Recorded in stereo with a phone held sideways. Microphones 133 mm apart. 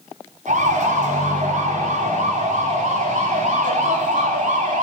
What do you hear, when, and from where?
0.5 s a siren: 80° right, 6 m